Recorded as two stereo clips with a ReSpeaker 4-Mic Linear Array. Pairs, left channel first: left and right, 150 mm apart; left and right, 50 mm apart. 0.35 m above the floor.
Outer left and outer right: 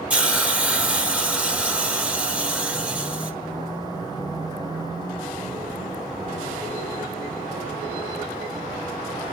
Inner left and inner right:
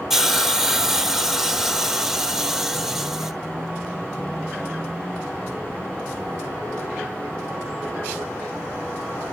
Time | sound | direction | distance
0.1 | a hiss | 10° right (ahead or behind) | 1.9 m